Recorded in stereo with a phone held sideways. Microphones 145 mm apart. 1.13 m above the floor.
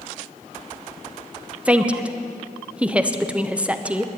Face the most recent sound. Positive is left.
turn(degrees=-10)  # may be behind; listen again after turning